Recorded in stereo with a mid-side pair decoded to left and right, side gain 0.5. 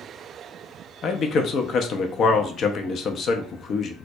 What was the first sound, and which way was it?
A man speaking, 55° left.